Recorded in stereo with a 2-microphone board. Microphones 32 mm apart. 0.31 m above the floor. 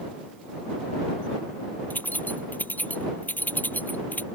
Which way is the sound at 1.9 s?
65° left (ahead or behind).